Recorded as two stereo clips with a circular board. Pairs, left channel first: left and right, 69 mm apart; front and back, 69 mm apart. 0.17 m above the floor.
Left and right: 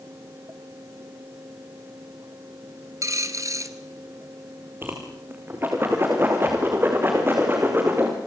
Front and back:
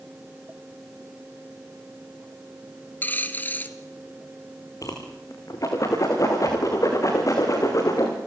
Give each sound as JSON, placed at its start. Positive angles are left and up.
{"t": 3.0, "sound": "a dropped coin", "azimuth_deg": -60, "distance_m": 1.5}
{"t": 4.8, "sound": "a whoosh", "azimuth_deg": -35, "distance_m": 5.5}